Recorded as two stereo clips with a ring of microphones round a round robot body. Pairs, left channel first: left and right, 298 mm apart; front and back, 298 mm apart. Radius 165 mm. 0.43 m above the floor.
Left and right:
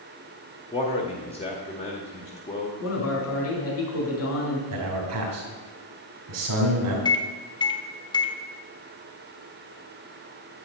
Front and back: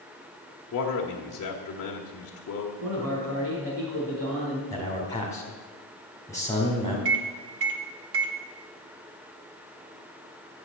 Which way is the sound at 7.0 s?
160° left.